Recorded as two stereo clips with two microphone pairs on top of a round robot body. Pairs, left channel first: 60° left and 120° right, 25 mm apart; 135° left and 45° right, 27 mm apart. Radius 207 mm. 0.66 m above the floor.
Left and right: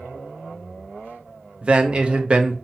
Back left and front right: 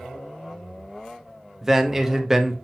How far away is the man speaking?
About 0.8 m.